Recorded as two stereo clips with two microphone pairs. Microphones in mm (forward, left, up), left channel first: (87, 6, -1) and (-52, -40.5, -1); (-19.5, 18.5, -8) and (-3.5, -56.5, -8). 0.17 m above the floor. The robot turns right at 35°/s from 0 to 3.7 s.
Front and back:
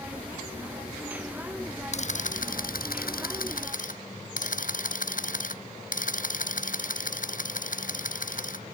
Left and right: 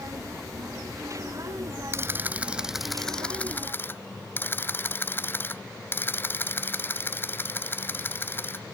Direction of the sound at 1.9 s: 20° right.